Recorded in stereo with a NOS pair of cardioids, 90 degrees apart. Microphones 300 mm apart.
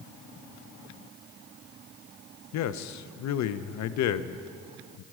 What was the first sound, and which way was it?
A man speaking, 65° left.